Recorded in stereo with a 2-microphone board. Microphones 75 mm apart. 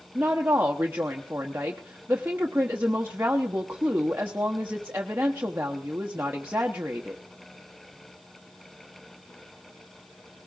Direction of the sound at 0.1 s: 25° right (ahead or behind).